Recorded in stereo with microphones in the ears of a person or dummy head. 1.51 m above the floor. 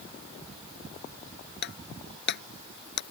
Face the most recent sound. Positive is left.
turn(degrees=60)  # may be behind; listen again after turning